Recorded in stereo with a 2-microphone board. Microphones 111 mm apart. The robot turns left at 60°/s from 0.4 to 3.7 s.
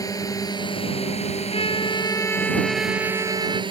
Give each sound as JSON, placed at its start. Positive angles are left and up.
{"t": 0.0, "sound": "a drone", "azimuth_deg": 145}
{"t": 1.5, "sound": "a trumpet", "azimuth_deg": 70}